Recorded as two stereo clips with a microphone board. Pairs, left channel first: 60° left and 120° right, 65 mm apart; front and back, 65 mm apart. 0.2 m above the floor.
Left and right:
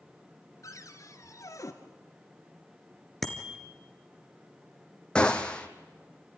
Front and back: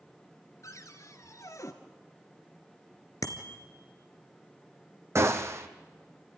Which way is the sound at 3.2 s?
25° right.